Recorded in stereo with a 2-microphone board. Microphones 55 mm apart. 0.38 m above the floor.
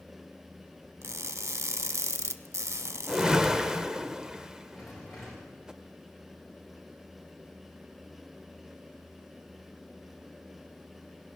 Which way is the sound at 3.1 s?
15° right (ahead or behind).